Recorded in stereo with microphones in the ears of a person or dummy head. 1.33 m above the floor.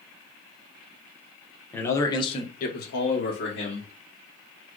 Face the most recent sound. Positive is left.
turn(degrees=55)  # may be behind; listen again after turning